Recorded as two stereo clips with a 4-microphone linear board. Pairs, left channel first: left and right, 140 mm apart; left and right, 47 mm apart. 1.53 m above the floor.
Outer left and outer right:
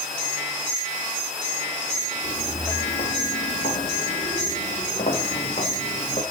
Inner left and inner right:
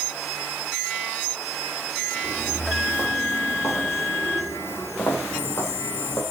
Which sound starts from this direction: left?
Footsteps, at 2.2 s.